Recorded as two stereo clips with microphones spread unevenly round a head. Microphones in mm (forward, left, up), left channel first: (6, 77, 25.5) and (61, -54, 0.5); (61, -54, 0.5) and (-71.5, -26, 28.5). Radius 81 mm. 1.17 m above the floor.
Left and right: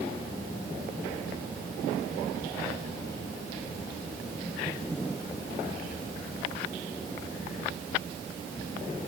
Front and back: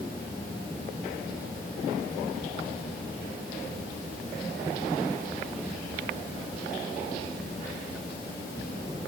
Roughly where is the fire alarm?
I don't hear a fire alarm.